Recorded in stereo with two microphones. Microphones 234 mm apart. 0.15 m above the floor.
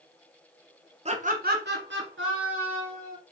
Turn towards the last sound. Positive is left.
turn(degrees=-60)  # may be behind; listen again after turning